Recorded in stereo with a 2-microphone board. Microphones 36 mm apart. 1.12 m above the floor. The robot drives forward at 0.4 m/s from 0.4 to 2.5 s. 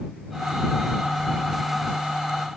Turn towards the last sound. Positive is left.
No sound to turn to.